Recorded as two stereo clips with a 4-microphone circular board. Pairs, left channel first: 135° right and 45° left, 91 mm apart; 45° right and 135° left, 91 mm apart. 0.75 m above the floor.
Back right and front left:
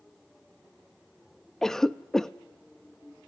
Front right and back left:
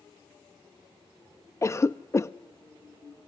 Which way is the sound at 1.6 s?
55° right.